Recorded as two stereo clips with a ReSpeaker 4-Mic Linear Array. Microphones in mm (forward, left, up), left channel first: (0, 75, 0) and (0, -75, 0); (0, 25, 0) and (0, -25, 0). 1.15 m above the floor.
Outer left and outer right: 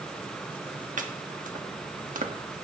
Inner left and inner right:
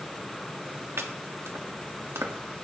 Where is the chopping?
60° right (ahead or behind), 1.2 m.